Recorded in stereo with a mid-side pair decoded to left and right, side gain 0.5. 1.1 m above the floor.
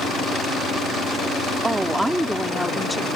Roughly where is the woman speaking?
Ahead.